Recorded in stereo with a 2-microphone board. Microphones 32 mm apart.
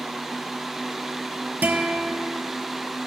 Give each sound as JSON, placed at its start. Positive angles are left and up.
{"t": 1.6, "sound": "a guitar", "side_deg": -65, "distance_m": 2.5}